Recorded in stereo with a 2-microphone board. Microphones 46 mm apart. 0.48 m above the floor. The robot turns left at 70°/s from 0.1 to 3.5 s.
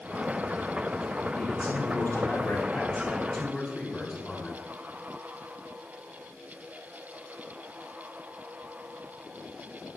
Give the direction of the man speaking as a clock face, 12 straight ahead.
7 o'clock.